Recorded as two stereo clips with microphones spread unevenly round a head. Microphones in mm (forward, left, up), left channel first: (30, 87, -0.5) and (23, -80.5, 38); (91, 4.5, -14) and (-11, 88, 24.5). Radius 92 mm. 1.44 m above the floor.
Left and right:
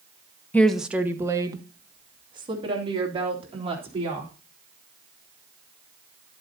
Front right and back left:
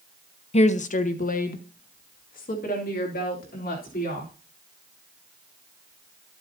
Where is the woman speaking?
5° left, 0.8 m; by 4.3 s 35° right, 4.5 m.